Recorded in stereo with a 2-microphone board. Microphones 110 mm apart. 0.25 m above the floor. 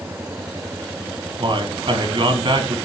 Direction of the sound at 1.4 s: 50° right (ahead or behind).